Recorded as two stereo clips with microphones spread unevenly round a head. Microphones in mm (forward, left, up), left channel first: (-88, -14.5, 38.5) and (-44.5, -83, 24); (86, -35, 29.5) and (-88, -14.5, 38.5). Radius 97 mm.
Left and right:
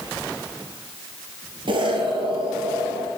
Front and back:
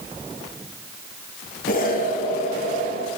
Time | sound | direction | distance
1.7 | an explosion | 45° right | 2.5 m